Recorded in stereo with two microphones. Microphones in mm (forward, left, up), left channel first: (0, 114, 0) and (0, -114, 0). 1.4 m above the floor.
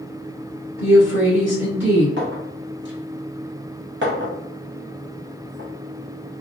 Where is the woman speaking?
60° right (ahead or behind), 1.6 m.